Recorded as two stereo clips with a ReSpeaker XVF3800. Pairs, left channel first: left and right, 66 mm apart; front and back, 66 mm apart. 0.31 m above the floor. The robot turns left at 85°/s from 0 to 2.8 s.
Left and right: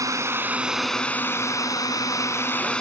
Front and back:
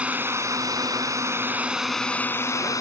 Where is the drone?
110° right; by 2.8 s 15° left.